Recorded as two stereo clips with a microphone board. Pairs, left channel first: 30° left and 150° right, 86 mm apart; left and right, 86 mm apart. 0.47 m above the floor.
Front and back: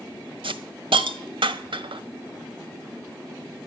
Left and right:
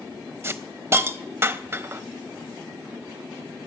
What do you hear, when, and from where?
0.4 s a hiss: 150° right, 0.6 m